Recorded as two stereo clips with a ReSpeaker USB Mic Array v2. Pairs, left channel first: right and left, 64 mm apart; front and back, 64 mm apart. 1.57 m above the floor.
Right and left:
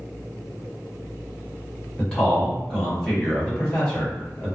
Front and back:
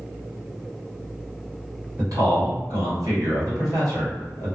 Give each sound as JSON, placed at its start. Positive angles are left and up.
{"t": 2.0, "sound": "a man speaking", "azimuth_deg": -165, "distance_m": 1.6}